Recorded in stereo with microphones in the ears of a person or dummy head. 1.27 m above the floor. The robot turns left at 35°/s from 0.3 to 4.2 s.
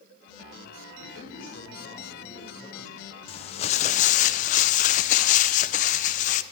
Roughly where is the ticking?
I don't hear ticking.